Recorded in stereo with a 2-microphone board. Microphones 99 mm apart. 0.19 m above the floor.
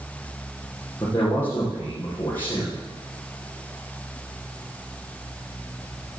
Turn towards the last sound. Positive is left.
turn(degrees=20)  # may be behind; listen again after turning